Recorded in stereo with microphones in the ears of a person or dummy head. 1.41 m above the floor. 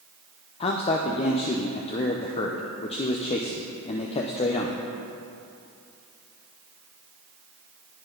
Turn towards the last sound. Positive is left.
turn(degrees=30)  # may be behind; listen again after turning